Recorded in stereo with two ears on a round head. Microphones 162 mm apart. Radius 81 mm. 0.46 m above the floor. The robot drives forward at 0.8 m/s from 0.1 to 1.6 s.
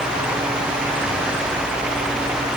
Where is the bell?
I don't hear a bell.